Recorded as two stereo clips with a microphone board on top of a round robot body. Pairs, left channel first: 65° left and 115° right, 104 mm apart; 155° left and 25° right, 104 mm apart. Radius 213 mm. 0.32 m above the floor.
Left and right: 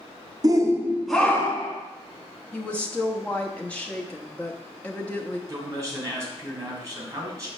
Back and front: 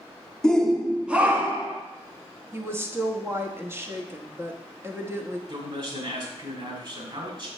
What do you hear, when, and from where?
0.4 s a shout: 125° right, 1.2 m; by 1.8 s 35° left, 1.4 m
2.5 s a woman speaking: 5° left, 1.2 m
5.5 s a man speaking: 55° right, 2.5 m